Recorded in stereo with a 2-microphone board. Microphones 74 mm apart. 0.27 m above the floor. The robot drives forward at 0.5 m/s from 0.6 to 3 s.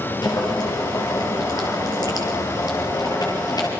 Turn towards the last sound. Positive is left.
turn(degrees=60)  # may be behind; listen again after turning